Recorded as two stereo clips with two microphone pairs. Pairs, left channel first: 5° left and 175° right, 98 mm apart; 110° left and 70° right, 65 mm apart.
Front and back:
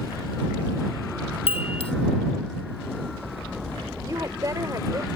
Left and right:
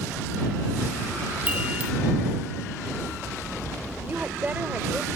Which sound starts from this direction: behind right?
A woman speaking, at 4.0 s.